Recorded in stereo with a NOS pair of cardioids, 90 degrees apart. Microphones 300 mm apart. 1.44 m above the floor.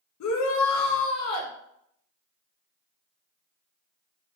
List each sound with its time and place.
0.2 s a shout: 70° left, 2 m